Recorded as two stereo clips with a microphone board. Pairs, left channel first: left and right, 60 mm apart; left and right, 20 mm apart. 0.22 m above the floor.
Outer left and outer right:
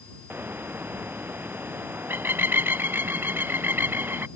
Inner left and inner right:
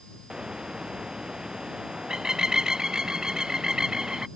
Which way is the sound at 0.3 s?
35° right (ahead or behind).